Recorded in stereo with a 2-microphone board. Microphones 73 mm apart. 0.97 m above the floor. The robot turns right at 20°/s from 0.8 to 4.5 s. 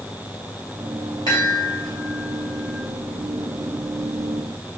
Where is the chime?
65° left (ahead or behind), 3 m; by 2.8 s 80° left, 3 m.